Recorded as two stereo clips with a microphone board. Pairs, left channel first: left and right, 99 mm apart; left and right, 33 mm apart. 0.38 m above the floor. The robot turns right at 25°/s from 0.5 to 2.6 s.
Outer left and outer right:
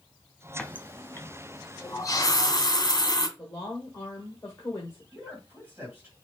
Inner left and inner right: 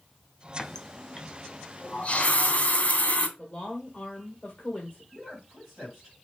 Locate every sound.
0.6 s a running tap: 10° left (ahead or behind), 0.9 m; by 3.3 s 40° left (ahead or behind), 0.9 m
3.4 s a woman speaking: 25° left (ahead or behind), 1.2 m
5.1 s a man speaking: 10° right (ahead or behind), 2 m